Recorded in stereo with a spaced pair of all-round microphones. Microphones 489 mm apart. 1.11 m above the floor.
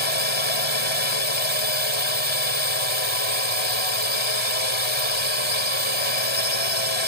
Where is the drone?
65° left (ahead or behind).